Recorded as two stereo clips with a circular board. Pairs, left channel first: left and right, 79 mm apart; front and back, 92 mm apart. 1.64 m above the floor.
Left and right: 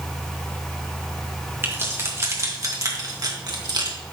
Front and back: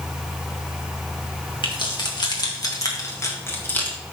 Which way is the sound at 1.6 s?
30° right.